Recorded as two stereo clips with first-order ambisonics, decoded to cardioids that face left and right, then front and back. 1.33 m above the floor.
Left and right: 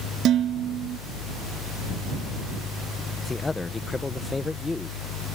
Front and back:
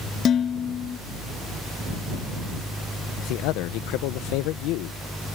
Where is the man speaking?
15° left.